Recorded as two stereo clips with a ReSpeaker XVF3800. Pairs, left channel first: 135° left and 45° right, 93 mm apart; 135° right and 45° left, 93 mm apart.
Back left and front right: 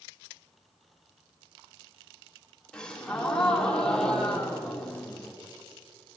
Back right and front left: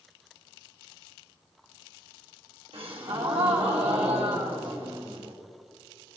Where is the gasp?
55° left, 2.5 m.